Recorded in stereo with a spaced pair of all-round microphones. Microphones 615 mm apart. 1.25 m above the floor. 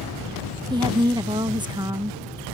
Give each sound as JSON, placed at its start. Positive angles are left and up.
{"t": 0.7, "sound": "a woman speaking", "side_deg": -5}